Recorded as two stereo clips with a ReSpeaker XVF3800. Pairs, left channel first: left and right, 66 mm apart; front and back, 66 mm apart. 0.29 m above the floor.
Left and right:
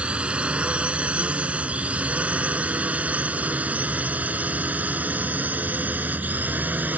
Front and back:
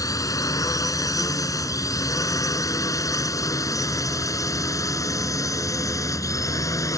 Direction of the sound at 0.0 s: 20° right.